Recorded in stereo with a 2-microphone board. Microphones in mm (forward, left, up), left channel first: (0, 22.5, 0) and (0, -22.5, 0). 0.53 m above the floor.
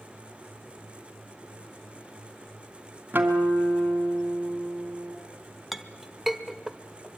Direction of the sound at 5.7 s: 5° right (ahead or behind).